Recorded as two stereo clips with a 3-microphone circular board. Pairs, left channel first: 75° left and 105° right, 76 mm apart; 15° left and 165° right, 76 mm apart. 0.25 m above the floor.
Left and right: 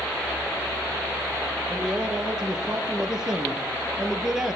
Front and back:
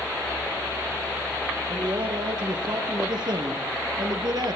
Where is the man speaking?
170° left, 6 m.